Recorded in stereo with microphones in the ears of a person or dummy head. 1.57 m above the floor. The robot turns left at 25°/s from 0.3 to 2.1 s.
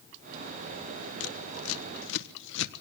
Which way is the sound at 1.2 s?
85° left.